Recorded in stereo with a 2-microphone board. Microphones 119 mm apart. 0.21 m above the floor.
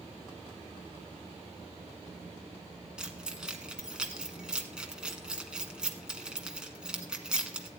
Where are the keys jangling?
5° right (ahead or behind), 1.4 m.